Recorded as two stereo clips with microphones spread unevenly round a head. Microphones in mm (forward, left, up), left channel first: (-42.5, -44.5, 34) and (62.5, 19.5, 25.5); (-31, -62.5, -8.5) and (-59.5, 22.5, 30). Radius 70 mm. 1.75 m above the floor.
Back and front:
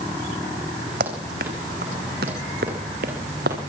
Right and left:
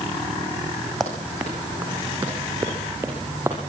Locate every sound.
1.0 s running footsteps: 30° left, 4.5 m; by 3.6 s 40° left, 7 m